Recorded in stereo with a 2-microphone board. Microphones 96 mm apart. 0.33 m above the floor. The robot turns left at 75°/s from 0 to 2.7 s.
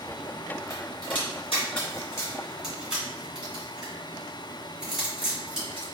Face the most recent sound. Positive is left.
turn(degrees=-5)  # may be behind; listen again after turning